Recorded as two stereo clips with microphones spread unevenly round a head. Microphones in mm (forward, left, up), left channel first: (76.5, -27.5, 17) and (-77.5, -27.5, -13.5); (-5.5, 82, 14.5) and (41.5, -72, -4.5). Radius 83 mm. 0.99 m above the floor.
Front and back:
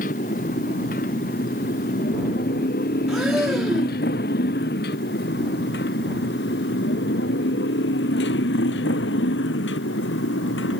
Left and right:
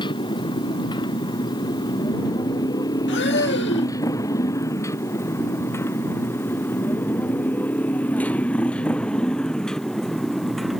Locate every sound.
0.0 s a motorcycle: 45° left; by 10.8 s 20° left
3.1 s breathing: 95° left